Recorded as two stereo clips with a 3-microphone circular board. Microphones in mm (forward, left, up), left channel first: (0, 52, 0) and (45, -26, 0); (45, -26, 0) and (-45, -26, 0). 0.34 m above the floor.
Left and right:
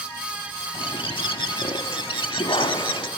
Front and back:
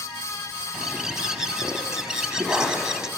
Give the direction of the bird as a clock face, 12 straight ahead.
9 o'clock.